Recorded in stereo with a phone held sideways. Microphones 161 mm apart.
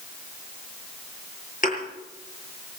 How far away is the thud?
About 8 m.